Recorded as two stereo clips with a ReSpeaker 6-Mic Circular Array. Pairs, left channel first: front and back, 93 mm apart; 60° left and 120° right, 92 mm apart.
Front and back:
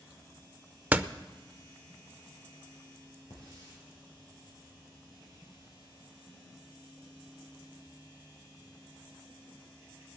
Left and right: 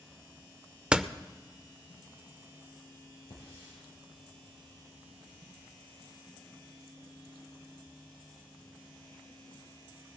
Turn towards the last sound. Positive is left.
turn(degrees=45)